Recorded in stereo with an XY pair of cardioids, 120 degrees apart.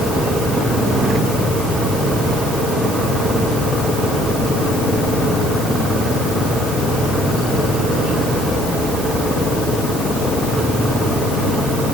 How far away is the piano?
I don't hear a piano.